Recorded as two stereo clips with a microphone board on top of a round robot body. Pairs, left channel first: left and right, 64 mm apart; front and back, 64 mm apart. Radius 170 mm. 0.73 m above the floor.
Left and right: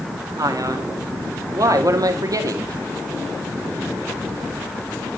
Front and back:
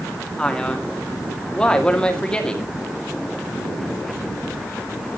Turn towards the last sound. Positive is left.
turn(degrees=-75)